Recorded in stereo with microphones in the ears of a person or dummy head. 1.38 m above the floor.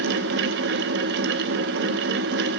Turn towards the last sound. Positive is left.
turn(degrees=-60)  # may be behind; listen again after turning